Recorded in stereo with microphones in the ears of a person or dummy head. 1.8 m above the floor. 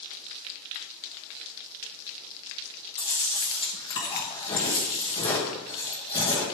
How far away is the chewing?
About 1.4 m.